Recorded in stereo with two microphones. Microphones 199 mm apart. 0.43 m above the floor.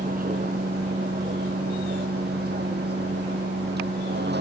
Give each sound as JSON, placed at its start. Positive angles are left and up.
{"t": 0.0, "sound": "a vehicle", "side_deg": -45}